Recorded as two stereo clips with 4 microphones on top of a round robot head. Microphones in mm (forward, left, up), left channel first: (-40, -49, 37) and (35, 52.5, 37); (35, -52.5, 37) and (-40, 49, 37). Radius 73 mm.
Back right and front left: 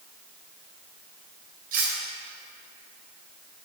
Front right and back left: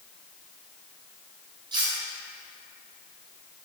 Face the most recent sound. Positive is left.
turn(degrees=70)